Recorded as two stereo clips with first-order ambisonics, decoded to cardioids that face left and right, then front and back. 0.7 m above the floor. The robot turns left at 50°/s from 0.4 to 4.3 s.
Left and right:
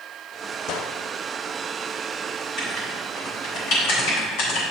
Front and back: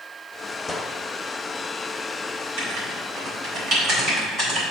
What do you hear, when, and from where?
0.7 s a gunshot: 80° left, 0.6 m; by 1.0 s 65° left, 0.6 m
2.6 s writing: straight behind, 3.5 m; by 4.6 s 90° left, 3.5 m